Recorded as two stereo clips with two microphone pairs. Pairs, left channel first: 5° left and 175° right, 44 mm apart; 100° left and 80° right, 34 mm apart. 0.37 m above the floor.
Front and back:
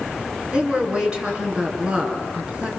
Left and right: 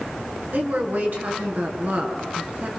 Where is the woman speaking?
105° right, 5.5 m.